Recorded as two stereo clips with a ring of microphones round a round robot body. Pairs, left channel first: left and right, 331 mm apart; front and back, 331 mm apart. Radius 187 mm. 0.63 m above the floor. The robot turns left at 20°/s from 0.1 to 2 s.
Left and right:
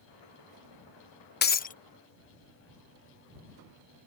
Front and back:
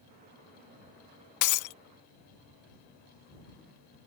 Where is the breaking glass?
30° left; by 1.8 s 25° left.